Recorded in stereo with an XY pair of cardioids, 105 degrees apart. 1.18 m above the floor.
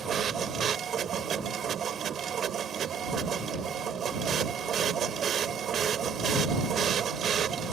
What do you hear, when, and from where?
0.0 s a machine running: 55° right